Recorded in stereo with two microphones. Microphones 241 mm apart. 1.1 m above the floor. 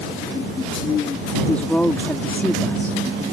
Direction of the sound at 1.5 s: 5° left (ahead or behind).